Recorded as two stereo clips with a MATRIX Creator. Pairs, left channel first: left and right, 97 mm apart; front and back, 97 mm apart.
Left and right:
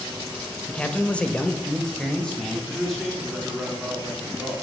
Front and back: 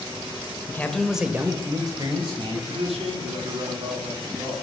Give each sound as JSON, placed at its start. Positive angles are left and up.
{"t": 0.7, "sound": "a man speaking", "azimuth_deg": 25, "distance_m": 0.9}
{"t": 2.7, "sound": "a man speaking", "azimuth_deg": 180, "distance_m": 3.5}